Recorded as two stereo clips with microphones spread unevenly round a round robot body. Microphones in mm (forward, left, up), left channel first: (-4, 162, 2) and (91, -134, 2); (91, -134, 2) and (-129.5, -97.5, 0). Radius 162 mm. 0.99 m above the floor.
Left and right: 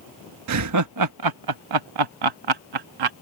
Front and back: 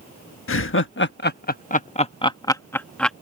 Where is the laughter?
35° right; by 3.1 s 95° right.